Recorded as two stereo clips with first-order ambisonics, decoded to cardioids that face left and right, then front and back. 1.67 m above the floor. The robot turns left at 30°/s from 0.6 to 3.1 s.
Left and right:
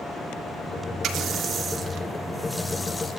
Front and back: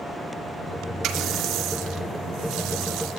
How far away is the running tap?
About 2.5 m.